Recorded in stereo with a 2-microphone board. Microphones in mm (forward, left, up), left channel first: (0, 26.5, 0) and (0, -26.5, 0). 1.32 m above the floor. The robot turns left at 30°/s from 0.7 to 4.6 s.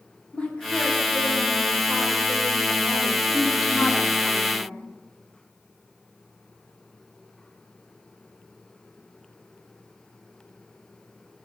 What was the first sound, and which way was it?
A woman speaking, 160° left.